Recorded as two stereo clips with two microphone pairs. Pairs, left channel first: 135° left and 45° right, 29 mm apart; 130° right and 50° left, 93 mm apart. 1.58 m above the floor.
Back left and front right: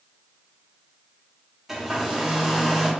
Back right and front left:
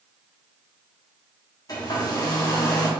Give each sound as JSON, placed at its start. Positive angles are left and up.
{"t": 1.7, "sound": "a hair dryer", "azimuth_deg": -115, "distance_m": 0.9}